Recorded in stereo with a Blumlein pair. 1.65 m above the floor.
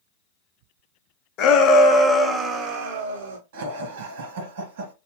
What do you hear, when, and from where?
1.4 s a shout: 35° left, 1.2 m; by 3.4 s 55° right, 1.3 m
3.5 s laughter: 50° right, 1.8 m